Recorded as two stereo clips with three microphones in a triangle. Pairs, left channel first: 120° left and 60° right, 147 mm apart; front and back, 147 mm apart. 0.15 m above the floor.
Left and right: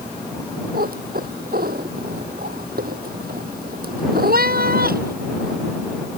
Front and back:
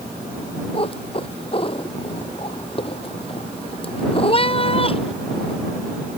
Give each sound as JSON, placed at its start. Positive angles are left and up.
{"t": 0.7, "sound": "a cat meowing", "azimuth_deg": -55}